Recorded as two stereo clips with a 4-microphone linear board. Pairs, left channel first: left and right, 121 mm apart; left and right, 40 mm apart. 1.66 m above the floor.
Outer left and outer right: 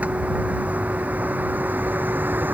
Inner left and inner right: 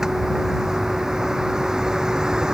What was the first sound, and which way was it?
A vehicle, 10° right (ahead or behind).